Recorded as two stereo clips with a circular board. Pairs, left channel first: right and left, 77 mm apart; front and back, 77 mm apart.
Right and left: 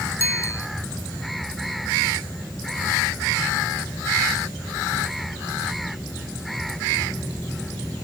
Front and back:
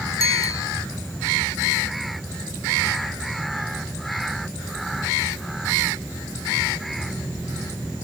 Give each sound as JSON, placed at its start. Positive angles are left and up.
{"t": 0.2, "sound": "a bicycle bell", "azimuth_deg": -40}